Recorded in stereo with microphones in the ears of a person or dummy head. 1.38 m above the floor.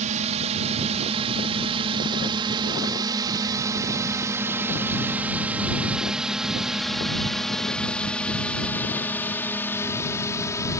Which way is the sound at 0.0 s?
35° right (ahead or behind).